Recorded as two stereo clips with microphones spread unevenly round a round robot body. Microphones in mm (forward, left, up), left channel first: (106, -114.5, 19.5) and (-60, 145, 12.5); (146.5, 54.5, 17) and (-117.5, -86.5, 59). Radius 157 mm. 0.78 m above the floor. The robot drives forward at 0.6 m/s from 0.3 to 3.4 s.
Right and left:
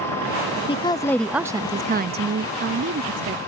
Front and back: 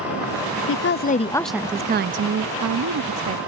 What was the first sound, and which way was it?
A woman speaking, 10° left.